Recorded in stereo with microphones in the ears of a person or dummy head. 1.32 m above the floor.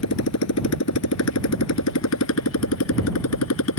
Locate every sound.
0.0 s a motorcycle: 75° left (ahead or behind); by 3.8 s 80° left